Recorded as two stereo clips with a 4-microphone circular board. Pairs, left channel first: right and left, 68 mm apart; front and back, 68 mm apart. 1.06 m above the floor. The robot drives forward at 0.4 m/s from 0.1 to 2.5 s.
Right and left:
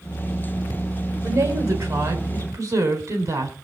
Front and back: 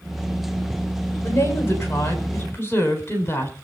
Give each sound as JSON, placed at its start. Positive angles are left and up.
{"t": 1.2, "sound": "a woman speaking", "azimuth_deg": 50, "distance_m": 5.0}